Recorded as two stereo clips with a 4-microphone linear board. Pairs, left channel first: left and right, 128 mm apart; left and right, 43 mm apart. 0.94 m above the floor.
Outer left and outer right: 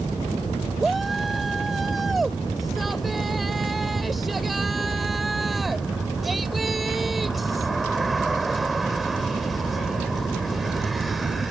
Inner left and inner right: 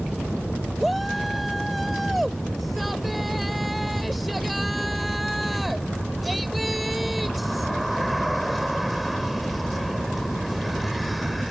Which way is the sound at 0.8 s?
Centre (ahead or behind).